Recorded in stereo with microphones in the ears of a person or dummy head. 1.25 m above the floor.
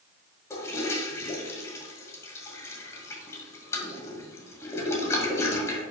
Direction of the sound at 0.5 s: 20° left (ahead or behind).